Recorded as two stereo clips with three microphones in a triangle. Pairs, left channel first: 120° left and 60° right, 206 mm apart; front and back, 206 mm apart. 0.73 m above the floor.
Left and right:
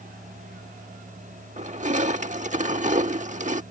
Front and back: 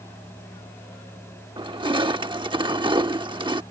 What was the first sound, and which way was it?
Crushing, 110° right.